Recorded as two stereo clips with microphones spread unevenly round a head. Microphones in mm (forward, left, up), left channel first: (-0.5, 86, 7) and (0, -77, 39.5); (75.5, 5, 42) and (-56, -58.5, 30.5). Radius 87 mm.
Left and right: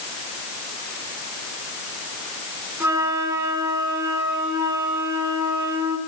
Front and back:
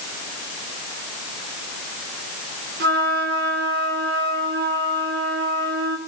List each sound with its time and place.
2.8 s a flute: 165° right, 5 m